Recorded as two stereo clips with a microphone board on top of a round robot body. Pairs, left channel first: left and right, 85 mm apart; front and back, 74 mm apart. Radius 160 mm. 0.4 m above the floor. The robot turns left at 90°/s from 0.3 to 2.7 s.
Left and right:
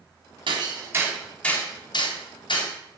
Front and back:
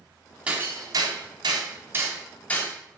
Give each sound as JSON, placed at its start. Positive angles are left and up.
{"t": 0.5, "sound": "hammering", "azimuth_deg": -110, "distance_m": 3.5}